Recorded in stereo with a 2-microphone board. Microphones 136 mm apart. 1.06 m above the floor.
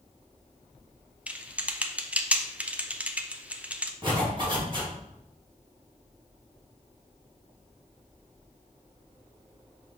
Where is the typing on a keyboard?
10° right (ahead or behind), 0.6 m.